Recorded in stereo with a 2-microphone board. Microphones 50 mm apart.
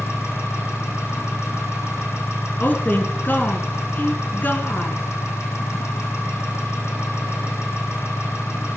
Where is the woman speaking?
40° left (ahead or behind), 1.7 m.